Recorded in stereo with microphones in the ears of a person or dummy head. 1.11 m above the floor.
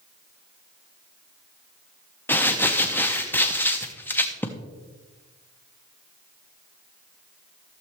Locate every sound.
2.3 s crumpling: 10° left (ahead or behind), 0.6 m